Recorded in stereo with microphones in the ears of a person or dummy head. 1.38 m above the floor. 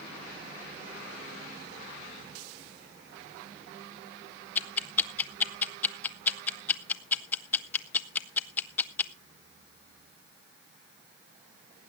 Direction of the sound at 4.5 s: 10° left (ahead or behind).